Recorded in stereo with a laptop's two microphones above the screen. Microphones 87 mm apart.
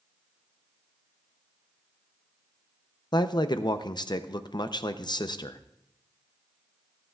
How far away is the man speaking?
About 0.5 m.